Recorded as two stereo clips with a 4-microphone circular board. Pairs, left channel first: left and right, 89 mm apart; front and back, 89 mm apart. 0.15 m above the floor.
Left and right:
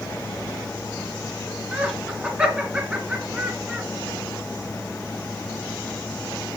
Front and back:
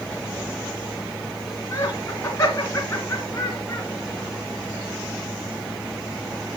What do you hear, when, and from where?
1.7 s laughter: 25° right, 1.3 m